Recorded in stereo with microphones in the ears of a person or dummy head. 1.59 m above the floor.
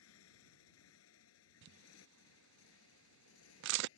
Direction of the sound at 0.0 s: 85° left.